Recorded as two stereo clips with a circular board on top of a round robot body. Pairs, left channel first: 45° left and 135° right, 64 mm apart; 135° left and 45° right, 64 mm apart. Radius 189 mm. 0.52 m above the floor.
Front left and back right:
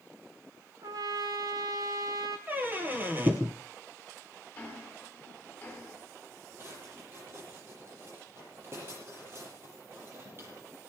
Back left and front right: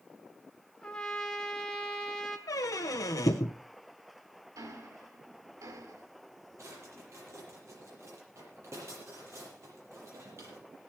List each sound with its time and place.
0.8 s a trumpet: 145° right, 3 m
2.5 s a squeak: 165° left, 0.7 m
4.5 s ticking: 25° right, 5.5 m
6.6 s a drawer: 85° right, 7.5 m